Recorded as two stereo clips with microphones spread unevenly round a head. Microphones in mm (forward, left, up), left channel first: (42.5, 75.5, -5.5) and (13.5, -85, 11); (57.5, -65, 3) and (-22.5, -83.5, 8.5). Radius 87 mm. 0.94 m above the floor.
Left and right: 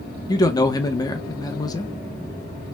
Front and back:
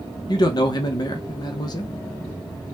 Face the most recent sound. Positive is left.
turn(degrees=20)